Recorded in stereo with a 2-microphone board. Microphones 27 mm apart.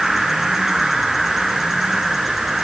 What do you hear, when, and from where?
0.0 s an insect: 10° right (ahead or behind), 4.5 m